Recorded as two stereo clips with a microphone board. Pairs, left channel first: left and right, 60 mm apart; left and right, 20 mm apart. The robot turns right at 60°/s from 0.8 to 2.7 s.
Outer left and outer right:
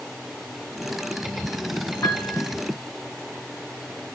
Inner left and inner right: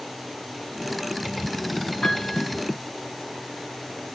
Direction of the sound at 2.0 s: 50° left (ahead or behind).